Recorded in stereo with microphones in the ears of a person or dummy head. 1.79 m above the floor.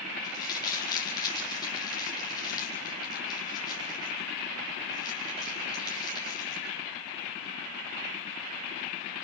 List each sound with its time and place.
0.2 s crumpling: 20° left (ahead or behind), 5 m